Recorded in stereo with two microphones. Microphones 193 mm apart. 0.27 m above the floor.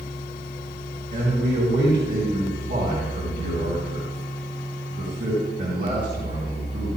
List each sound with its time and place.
1.1 s a man speaking: 60° right (ahead or behind), 3 m